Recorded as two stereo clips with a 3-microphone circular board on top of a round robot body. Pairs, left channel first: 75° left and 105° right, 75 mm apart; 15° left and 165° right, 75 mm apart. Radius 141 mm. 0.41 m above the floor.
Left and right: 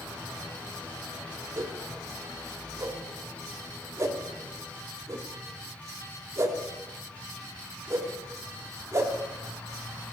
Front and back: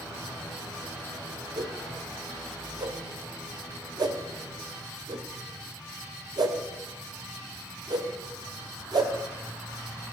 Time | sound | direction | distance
1.6 | a whoosh | 155° right | 1.9 m